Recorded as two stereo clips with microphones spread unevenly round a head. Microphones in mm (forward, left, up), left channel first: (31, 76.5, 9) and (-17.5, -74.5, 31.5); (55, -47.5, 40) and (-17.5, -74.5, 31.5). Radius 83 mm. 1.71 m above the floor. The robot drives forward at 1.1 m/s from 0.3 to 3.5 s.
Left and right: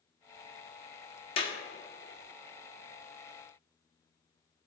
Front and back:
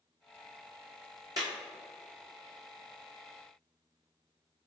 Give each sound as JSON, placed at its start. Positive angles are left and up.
{"t": 1.4, "sound": "a clap", "azimuth_deg": 135, "distance_m": 1.3}